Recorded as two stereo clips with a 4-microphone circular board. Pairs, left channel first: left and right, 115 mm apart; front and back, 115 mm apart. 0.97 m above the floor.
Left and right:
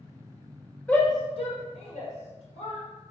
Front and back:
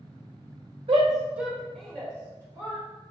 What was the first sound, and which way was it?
A shout, 165° left.